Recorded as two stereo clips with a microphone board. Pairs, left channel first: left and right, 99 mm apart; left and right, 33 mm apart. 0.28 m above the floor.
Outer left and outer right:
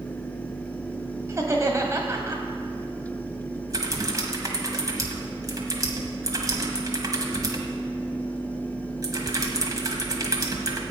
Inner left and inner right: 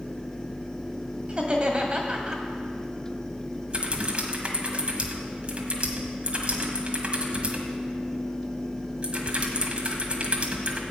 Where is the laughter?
30° right (ahead or behind), 1.6 m.